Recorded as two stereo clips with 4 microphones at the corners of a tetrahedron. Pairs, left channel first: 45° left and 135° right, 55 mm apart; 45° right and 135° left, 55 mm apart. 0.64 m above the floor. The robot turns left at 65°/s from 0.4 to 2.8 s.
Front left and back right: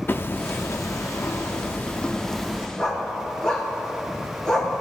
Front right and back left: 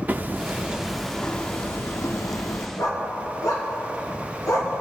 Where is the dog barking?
30° right, 2.5 m; by 4.7 s 35° right, 2.5 m.